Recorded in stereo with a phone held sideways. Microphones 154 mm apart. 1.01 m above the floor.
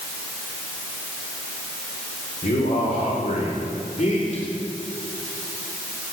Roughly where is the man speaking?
Left.